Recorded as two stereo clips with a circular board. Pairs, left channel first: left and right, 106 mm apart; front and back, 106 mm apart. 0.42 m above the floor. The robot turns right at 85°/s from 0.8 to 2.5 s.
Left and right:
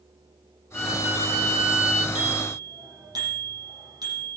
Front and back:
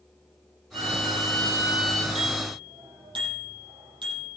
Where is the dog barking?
I don't hear a dog barking.